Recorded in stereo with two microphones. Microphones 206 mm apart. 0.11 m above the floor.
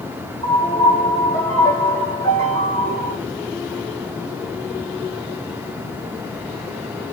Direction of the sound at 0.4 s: 15° left (ahead or behind).